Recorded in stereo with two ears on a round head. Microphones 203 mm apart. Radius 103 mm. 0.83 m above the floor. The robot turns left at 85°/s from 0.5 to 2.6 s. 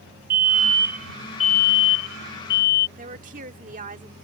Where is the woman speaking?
35° right (ahead or behind).